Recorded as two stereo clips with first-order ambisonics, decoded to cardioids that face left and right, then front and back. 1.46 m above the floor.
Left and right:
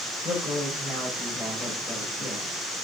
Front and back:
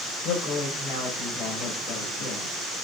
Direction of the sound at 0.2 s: 15° left.